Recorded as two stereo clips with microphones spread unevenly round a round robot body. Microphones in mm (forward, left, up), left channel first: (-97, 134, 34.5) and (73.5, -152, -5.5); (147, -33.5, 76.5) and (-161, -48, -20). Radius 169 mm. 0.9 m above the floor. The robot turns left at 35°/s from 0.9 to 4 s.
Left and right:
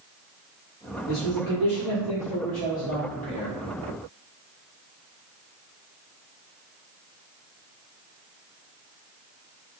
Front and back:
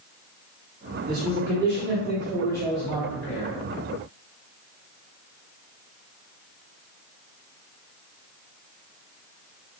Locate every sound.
1.1 s a man speaking: 140° left, 1.9 m; by 3.5 s 55° left, 1.9 m